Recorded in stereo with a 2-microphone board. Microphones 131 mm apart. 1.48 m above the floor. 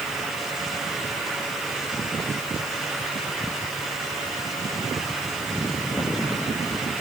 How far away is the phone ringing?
No phone ringing in this recording.